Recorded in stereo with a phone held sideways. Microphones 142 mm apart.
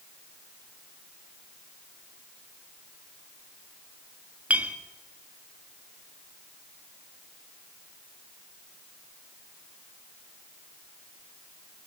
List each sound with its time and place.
4.5 s a clink: 10° right (ahead or behind), 1.1 m